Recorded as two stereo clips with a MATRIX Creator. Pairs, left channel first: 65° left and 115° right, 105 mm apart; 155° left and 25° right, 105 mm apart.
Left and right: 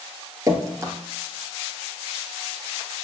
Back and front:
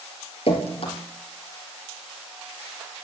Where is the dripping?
175° right, 2.5 m.